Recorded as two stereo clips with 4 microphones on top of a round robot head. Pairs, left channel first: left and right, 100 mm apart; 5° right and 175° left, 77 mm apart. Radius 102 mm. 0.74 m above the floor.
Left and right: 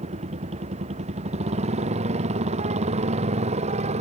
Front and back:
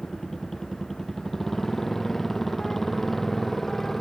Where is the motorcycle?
90° right.